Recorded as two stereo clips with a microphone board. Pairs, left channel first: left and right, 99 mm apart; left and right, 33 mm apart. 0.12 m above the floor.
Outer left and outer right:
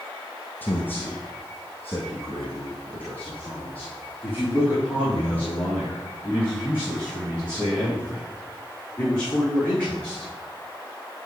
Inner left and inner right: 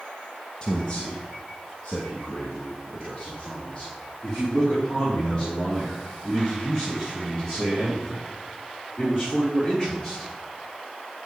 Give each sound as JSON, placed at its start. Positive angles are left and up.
{"t": 0.6, "sound": "a man speaking", "side_deg": 20, "distance_m": 1.2}